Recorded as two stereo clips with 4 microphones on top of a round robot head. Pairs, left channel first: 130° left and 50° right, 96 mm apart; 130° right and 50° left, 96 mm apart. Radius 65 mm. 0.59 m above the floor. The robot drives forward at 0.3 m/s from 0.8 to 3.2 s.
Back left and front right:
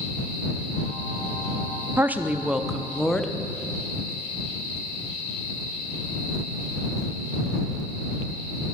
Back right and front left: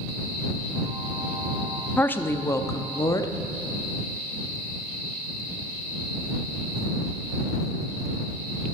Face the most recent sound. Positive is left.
turn(degrees=-150)